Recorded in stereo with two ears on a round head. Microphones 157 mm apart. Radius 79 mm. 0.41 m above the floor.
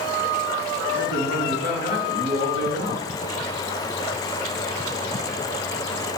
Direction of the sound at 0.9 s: 80° left.